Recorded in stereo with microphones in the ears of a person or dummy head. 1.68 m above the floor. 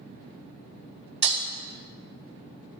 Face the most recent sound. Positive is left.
turn(degrees=-35)  # may be behind; listen again after turning